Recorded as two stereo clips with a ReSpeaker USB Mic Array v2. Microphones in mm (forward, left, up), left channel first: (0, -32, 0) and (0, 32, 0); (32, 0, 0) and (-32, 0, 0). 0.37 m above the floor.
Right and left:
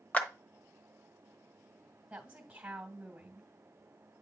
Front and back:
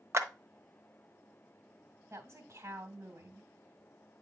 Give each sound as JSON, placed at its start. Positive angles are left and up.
{"t": 0.1, "sound": "a clap", "azimuth_deg": -150, "distance_m": 1.0}
{"t": 2.1, "sound": "a woman speaking", "azimuth_deg": 155, "distance_m": 2.0}